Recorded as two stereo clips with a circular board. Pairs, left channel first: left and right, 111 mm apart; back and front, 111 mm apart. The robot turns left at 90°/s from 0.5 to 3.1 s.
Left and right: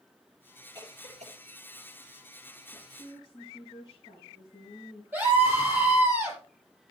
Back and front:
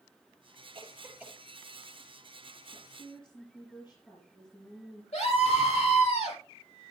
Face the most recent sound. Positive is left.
turn(degrees=-160)